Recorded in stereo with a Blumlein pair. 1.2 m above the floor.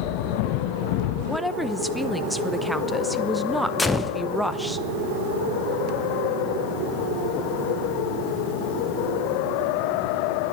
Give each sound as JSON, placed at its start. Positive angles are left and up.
{"t": 1.3, "sound": "a woman speaking", "azimuth_deg": 0, "distance_m": 0.7}
{"t": 3.8, "sound": "a gunshot", "azimuth_deg": 10, "distance_m": 0.7}